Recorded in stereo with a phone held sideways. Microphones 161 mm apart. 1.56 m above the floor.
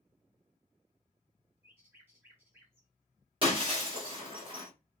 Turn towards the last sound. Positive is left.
turn(degrees=-35)  # may be behind; listen again after turning